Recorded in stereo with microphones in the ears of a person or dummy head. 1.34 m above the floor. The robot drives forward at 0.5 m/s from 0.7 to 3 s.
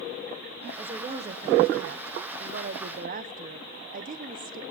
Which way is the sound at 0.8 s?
35° right (ahead or behind).